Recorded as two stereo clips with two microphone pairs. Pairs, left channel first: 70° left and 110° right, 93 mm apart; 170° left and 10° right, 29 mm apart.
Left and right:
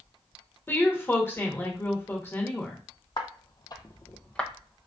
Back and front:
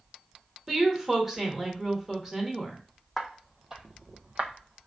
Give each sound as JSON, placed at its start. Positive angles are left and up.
{"t": 0.7, "sound": "a woman speaking", "azimuth_deg": 45, "distance_m": 0.8}
{"t": 3.2, "sound": "footsteps", "azimuth_deg": 90, "distance_m": 0.7}